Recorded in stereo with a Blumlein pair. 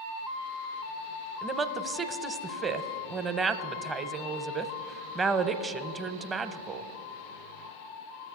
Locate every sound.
1.4 s a woman speaking: 15° right, 0.7 m